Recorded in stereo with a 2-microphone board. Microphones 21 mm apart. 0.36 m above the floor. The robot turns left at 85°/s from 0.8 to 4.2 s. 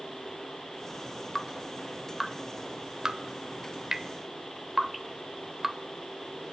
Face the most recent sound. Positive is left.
turn(degrees=-10)  # may be behind; listen again after turning